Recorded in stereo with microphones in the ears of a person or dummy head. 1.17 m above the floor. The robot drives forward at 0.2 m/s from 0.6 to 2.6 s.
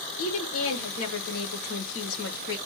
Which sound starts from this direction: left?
A woman speaking, at 0.2 s.